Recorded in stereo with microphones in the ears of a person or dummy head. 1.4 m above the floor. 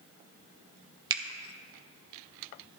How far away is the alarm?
No alarm in this recording.